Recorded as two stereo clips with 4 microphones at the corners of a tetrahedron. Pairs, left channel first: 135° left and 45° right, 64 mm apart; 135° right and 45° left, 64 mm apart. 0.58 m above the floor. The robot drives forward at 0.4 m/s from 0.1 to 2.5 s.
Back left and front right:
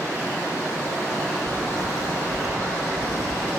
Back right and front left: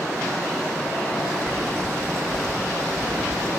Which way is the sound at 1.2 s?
45° right.